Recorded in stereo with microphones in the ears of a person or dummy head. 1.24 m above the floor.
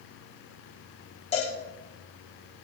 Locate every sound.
1.3 s a cowbell: 35° left (ahead or behind), 3 m